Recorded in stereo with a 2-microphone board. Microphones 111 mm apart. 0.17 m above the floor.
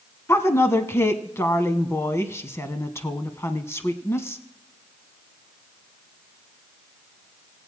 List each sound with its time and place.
0.3 s a woman speaking: 25° left (ahead or behind), 1.1 m